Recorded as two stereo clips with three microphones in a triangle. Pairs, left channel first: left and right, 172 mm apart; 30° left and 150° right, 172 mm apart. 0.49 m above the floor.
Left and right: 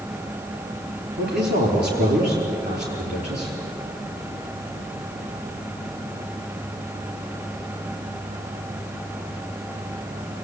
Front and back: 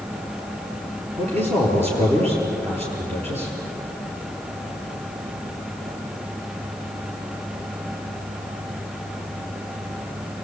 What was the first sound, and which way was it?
A man speaking, 100° right.